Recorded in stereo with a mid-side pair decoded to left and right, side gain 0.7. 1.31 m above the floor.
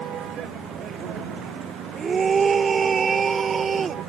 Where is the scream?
30° right.